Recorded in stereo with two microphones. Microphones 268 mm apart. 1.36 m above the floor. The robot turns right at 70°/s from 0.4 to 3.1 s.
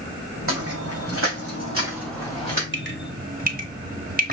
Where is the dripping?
45° right (ahead or behind), 1.0 m; by 4.3 s 35° right (ahead or behind), 1.0 m.